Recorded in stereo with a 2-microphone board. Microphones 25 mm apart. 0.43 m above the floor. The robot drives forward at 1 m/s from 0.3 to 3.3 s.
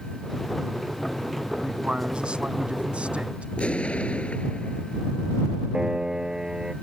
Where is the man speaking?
40° right (ahead or behind); by 3.5 s 60° right (ahead or behind).